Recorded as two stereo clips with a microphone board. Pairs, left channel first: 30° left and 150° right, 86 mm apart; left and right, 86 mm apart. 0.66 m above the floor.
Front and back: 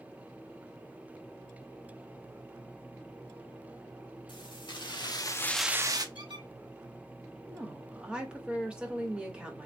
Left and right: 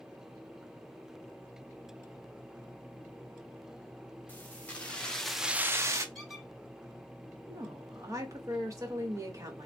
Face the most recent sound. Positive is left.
turn(degrees=-80)